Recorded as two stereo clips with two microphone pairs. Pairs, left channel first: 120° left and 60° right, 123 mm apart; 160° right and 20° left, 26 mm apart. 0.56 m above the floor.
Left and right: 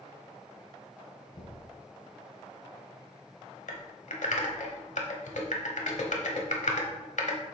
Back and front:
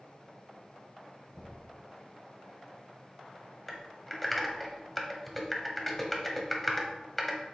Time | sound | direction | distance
1.3 | knocking | 110° left | 2.0 m
3.7 | typing on a keyboard | 120° left | 1.2 m